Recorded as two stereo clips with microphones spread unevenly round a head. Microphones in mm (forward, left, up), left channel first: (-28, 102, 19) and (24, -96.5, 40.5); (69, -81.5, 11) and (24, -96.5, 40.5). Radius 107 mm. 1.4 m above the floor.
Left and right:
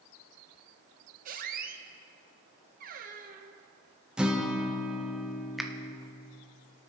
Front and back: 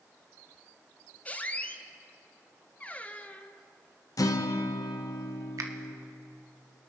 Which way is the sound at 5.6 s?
165° right.